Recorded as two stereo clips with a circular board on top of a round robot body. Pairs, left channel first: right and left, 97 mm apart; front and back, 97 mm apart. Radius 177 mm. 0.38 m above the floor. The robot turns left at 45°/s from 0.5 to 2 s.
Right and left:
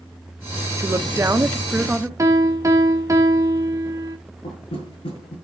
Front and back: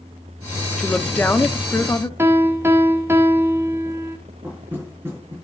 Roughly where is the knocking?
Behind right.